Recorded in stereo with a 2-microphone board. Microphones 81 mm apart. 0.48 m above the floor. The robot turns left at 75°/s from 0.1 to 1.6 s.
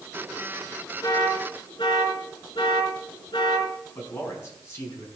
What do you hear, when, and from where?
1.0 s an alarm: 50° left (ahead or behind), 4 m; by 3.7 s 85° left, 4 m
4.0 s a man speaking: 35° left (ahead or behind), 5 m